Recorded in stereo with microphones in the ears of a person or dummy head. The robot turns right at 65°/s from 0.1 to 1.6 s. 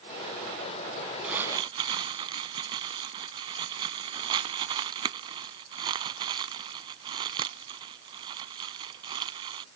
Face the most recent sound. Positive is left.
turn(degrees=-30)  # may be behind; listen again after turning